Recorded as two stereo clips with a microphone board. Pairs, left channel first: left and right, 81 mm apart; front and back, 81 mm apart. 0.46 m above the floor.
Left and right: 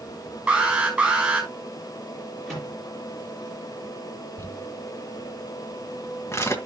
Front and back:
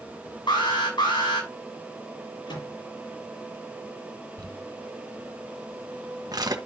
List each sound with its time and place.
0.5 s an alarm: 10° right, 6 m
2.5 s a microwave: 5° left, 8.5 m
4.4 s crumpling: 145° left, 1.6 m